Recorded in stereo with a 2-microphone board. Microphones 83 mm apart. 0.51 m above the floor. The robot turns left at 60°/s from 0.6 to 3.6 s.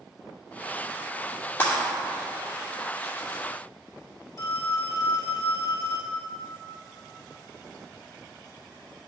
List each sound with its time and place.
1.6 s breaking glass: 30° left (ahead or behind), 2.5 m; by 1.8 s 15° left (ahead or behind), 2.5 m
4.4 s a phone ringing: 40° left (ahead or behind), 1.4 m